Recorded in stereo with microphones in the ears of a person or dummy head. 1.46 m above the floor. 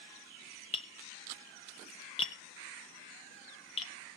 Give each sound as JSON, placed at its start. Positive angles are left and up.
{"t": 0.7, "sound": "tapping", "side_deg": 30, "distance_m": 1.0}